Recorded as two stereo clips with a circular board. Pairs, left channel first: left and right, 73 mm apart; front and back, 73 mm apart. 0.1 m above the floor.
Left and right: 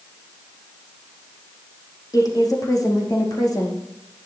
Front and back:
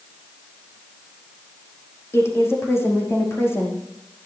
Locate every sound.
2.1 s a woman speaking: 55° left, 4.5 m